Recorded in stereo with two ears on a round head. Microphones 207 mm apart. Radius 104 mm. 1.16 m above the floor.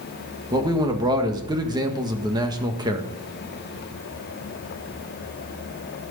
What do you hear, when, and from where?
0.5 s a man speaking: 20° right (ahead or behind), 1.6 m